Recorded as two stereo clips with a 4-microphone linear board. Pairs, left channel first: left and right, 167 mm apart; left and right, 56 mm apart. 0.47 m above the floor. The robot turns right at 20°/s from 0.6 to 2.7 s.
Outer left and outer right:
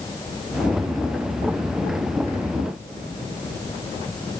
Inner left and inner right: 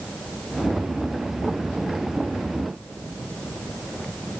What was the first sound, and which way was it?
Only background noise.